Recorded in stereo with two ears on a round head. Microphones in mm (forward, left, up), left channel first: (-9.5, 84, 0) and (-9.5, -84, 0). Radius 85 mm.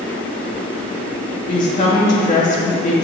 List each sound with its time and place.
1.5 s a woman speaking: 40° left (ahead or behind), 2.5 m